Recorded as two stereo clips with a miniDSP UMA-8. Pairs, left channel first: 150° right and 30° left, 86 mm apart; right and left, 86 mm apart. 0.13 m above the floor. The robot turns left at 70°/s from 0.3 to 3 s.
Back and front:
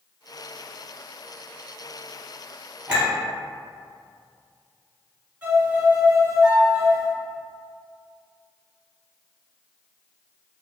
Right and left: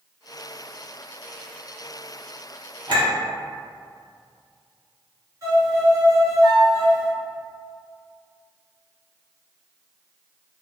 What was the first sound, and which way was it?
A clink, 105° left.